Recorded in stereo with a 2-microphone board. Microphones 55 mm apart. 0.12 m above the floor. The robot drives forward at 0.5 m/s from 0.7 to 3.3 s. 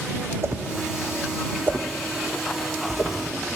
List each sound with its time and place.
0.4 s a whoosh: 50° right (ahead or behind), 1.1 m; by 3.2 s 25° right (ahead or behind), 2 m